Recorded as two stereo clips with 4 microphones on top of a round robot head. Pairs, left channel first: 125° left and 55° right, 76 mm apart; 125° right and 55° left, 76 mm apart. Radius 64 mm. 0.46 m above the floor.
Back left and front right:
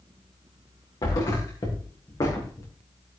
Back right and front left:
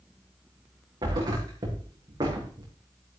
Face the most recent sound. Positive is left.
turn(degrees=90)